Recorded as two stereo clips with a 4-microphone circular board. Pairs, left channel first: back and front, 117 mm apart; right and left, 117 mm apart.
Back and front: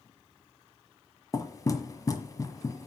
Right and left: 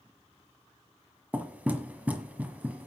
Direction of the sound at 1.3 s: 155° left.